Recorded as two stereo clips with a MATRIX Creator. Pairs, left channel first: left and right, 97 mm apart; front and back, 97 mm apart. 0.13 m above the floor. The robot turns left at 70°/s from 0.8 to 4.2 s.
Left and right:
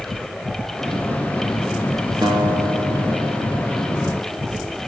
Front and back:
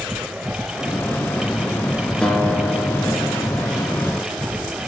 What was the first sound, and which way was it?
A guitar, 75° right.